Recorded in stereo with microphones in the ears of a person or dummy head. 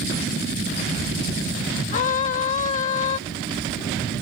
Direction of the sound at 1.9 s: 40° left (ahead or behind).